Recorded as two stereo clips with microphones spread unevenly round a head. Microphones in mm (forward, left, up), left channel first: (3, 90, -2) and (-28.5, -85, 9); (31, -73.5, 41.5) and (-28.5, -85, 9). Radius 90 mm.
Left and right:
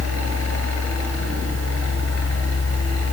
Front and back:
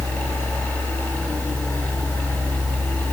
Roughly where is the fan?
Left.